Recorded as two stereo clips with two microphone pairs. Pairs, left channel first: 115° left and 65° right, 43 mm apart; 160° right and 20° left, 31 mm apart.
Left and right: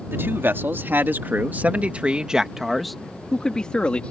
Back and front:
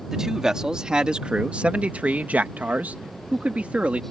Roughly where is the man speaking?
Ahead right.